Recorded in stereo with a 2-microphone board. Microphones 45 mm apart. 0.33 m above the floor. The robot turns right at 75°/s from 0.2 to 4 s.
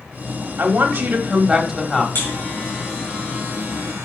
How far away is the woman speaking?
About 1.8 m.